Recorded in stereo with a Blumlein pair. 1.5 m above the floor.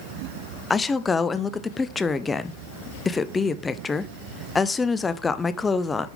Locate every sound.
0.7 s a woman speaking: 15° left, 0.6 m